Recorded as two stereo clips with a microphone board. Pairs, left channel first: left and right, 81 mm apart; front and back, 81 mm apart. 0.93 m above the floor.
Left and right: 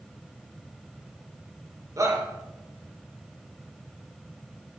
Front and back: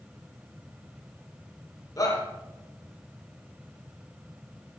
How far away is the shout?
About 3.5 m.